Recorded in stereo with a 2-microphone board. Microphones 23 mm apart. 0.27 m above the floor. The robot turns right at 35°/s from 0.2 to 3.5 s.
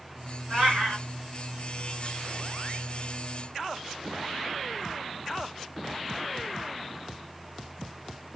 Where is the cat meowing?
50° right (ahead or behind), 2.5 m; by 1.0 s 70° right (ahead or behind), 2.5 m.